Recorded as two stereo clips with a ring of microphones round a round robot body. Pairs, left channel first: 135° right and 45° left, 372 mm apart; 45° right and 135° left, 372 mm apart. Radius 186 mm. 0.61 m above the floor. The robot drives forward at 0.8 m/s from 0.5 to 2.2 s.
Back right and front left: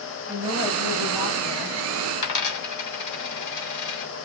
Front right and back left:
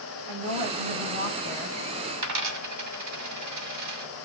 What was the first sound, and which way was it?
A woman speaking, 160° left.